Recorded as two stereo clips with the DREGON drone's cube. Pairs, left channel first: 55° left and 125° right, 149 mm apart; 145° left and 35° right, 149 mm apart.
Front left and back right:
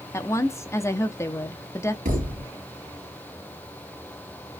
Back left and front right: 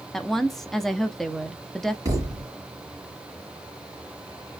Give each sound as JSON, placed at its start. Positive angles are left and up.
{"t": 0.1, "sound": "a woman speaking", "azimuth_deg": 60, "distance_m": 0.5}
{"t": 2.0, "sound": "a thud", "azimuth_deg": -105, "distance_m": 2.0}